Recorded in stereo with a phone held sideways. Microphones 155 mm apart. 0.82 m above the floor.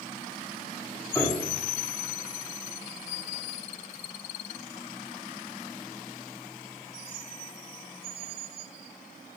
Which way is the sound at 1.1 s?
15° left (ahead or behind).